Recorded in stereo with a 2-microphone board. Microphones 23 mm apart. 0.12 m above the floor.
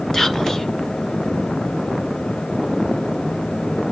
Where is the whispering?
15° left (ahead or behind), 1.9 m.